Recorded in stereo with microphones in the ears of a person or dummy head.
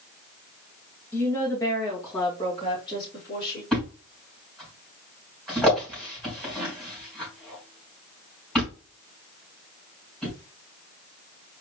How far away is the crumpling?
No crumpling in this recording.